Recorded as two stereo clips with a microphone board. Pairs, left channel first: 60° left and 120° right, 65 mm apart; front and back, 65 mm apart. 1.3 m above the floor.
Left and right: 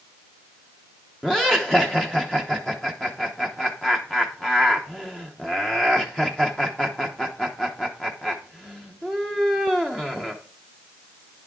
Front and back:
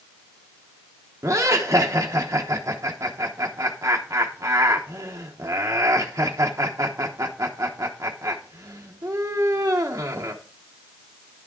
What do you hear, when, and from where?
1.2 s laughter: 140° left, 0.9 m